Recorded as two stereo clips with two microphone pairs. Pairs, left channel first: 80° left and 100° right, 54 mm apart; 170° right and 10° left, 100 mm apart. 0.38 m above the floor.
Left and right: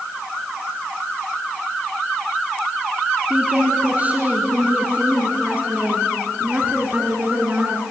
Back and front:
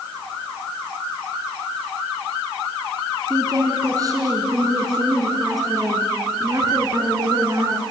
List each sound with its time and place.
3.3 s a woman speaking: 40° right, 5 m